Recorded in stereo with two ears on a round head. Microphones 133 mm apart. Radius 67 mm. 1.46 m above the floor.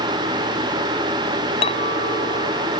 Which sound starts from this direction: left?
A clink, at 1.6 s.